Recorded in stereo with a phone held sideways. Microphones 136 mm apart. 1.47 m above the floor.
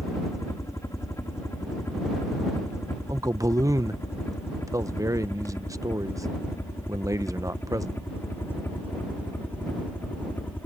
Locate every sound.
0.0 s a helicopter: 20° left (ahead or behind); by 10.7 s 15° left (ahead or behind)
3.1 s a man speaking: 25° right (ahead or behind)